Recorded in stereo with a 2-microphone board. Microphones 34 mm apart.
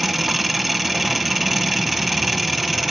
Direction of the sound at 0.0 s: Centre (ahead or behind).